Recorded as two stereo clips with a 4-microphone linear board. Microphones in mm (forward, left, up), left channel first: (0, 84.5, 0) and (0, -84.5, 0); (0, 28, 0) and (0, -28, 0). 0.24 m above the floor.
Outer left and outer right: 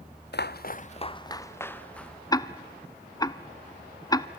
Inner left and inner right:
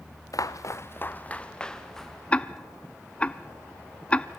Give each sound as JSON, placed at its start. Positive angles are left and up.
{"t": 0.3, "sound": "footsteps", "side_deg": 80, "distance_m": 1.0}
{"t": 2.3, "sound": "ticking", "side_deg": 20, "distance_m": 0.8}